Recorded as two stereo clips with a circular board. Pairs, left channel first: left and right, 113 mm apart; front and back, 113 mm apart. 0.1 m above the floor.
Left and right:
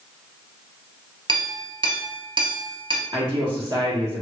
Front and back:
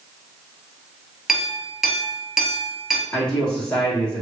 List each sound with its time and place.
1.3 s a clink: 95° right, 0.9 m
3.1 s a man speaking: 70° right, 1.6 m